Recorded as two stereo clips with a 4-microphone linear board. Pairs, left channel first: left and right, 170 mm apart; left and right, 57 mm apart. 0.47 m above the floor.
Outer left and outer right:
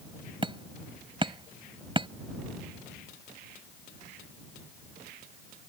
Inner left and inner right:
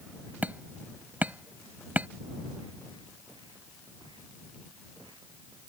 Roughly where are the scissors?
I don't hear scissors.